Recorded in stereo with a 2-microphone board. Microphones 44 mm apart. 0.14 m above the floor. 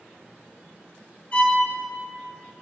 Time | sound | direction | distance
1.3 | a violin | 35° left (ahead or behind) | 3.5 m